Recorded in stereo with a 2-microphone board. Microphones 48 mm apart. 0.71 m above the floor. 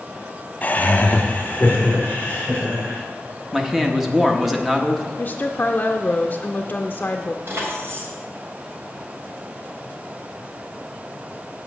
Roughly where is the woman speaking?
Left.